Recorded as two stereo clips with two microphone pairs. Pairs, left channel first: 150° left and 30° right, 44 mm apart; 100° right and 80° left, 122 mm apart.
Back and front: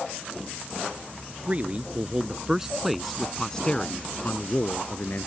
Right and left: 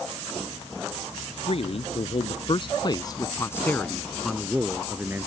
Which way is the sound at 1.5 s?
85° right.